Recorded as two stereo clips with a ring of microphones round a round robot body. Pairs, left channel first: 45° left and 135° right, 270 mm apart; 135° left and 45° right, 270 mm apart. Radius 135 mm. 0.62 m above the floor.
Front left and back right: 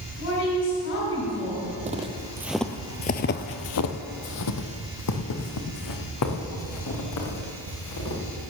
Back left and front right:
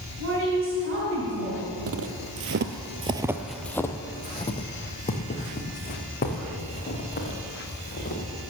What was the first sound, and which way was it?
A woman speaking, straight ahead.